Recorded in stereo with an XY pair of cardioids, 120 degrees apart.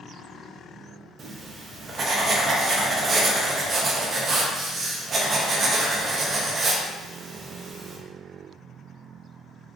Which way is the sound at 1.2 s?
40° right.